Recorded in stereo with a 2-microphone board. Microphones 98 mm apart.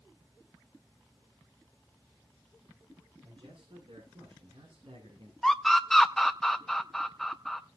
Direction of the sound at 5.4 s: 5° left (ahead or behind).